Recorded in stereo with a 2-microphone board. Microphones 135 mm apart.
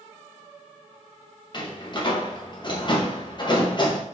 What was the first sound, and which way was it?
A door slam, 35° left (ahead or behind).